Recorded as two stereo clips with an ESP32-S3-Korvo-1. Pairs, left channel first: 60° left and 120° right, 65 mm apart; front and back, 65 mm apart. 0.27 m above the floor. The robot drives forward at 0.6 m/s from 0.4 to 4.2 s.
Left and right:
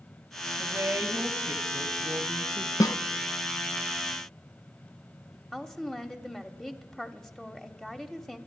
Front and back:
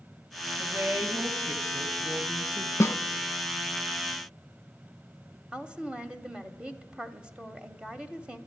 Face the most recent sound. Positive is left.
turn(degrees=135)